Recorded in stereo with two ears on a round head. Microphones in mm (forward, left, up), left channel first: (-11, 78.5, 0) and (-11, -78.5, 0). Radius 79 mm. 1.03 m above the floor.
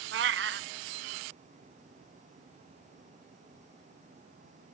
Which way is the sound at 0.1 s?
65° right (ahead or behind).